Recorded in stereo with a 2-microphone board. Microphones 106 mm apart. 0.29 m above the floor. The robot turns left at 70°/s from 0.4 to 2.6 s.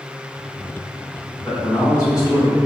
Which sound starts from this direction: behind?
A man speaking, at 1.4 s.